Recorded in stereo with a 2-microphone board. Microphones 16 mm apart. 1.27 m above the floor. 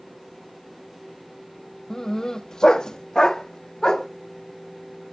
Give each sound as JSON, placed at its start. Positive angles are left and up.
{"t": 1.9, "sound": "a dog barking", "side_deg": 30, "distance_m": 0.8}